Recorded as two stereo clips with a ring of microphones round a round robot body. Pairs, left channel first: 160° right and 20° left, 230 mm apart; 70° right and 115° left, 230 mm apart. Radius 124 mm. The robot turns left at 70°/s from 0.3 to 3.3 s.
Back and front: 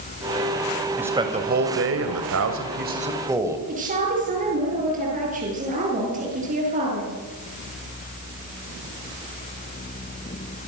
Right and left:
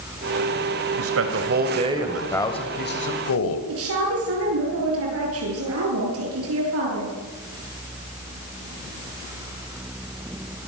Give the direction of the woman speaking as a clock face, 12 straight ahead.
9 o'clock.